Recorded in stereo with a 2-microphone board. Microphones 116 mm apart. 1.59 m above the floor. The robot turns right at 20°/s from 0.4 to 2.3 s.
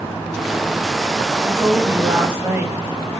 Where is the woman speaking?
35° right (ahead or behind), 1.4 m; by 2.8 s 20° right (ahead or behind), 1.4 m.